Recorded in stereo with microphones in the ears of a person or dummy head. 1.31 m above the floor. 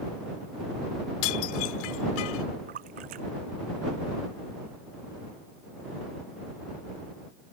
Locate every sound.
1.2 s dishes clattering: 80° left
2.7 s a splash: 55° right (ahead or behind)